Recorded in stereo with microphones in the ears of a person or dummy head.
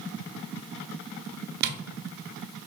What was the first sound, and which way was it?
Tapping, 50° right (ahead or behind).